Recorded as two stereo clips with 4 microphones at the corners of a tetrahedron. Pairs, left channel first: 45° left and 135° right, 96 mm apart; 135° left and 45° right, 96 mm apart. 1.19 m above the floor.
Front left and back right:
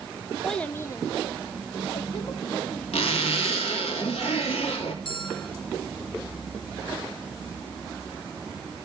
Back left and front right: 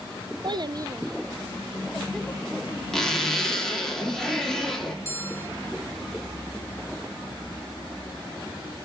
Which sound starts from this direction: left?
A bell, at 5.0 s.